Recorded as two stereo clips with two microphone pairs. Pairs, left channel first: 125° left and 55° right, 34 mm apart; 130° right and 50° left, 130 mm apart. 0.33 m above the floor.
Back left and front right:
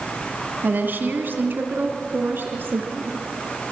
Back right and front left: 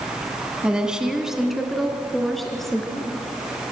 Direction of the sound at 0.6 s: 35° right.